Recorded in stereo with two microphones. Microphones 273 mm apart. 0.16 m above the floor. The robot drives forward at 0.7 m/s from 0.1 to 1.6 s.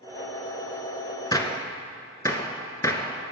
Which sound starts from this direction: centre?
A gunshot, at 1.3 s.